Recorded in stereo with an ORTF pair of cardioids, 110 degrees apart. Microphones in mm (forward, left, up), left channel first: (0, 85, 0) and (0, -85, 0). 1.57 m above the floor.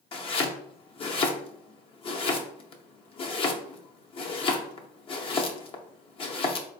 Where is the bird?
I don't hear a bird.